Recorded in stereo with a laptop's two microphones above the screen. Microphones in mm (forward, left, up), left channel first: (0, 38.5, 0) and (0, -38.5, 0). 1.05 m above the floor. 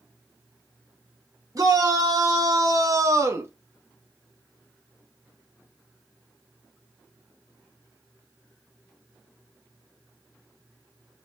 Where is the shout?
50° right (ahead or behind), 2 m; by 3.5 s 30° right (ahead or behind), 0.9 m.